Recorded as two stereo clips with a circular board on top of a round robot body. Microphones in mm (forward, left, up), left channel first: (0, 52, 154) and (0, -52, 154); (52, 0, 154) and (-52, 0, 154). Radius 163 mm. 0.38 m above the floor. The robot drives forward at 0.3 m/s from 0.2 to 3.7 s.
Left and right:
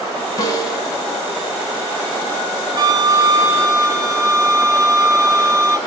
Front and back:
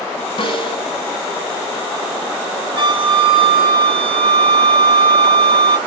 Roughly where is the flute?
Behind right.